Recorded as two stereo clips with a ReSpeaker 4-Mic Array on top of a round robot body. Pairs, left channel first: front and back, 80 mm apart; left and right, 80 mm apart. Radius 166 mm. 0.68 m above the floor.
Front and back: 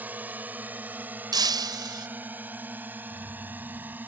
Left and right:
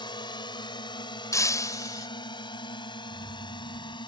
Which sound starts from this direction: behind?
Keys jangling, at 3.1 s.